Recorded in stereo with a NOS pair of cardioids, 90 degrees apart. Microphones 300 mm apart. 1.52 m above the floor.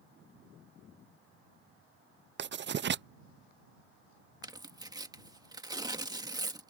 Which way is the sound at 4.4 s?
15° right.